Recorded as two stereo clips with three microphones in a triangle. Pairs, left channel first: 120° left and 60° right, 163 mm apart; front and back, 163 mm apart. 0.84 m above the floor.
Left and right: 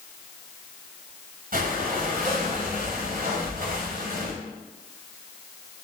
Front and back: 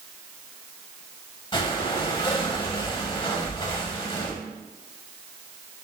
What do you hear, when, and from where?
1.5 s breathing: 55° right, 1.0 m